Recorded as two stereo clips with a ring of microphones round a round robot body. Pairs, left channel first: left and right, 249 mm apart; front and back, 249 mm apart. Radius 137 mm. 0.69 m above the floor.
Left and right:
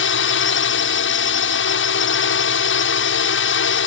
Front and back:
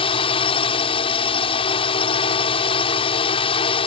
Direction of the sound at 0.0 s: 65° left.